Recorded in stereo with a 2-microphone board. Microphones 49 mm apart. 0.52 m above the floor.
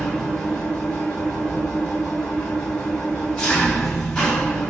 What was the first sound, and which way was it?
An engine running, 20° left (ahead or behind).